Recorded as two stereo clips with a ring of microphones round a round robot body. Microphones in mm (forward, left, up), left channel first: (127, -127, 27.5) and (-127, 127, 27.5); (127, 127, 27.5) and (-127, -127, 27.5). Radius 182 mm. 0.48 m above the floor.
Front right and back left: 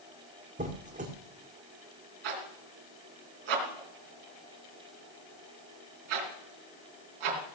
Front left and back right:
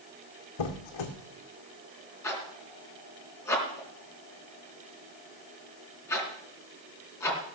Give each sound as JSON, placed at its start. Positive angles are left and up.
{"t": 0.6, "sound": "a squeak", "azimuth_deg": 65, "distance_m": 1.9}
{"t": 2.2, "sound": "a zipper", "azimuth_deg": 130, "distance_m": 3.5}